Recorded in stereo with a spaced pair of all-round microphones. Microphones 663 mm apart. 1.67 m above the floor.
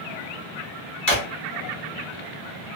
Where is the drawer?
30° left (ahead or behind), 1.1 m.